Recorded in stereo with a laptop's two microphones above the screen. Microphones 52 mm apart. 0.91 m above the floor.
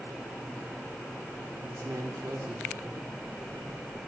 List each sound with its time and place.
1.6 s a man speaking: 70° right (ahead or behind), 3 m